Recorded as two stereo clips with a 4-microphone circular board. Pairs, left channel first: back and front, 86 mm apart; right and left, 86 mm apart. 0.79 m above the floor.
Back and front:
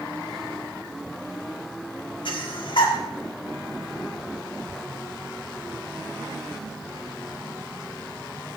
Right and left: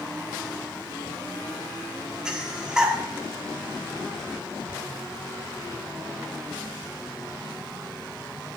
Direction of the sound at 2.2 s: 170° left.